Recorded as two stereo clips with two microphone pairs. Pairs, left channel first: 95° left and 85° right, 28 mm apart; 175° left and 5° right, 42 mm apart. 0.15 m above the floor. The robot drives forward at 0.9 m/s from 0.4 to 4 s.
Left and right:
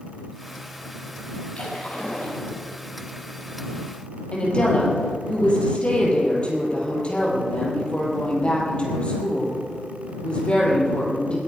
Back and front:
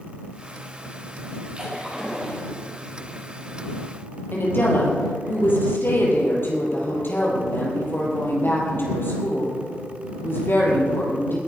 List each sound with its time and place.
1.6 s a splash: 60° left, 4 m; by 2.4 s 70° left, 4 m
4.3 s a woman speaking: 150° left, 4 m